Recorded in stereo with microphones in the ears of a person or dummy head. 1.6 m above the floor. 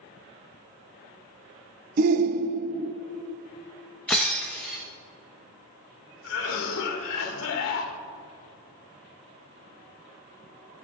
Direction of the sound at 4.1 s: Centre (ahead or behind).